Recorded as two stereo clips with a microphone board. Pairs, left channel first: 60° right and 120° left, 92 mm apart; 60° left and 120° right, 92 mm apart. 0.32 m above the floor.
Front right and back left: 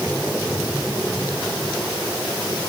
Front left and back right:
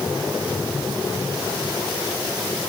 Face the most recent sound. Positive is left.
No sound to turn to.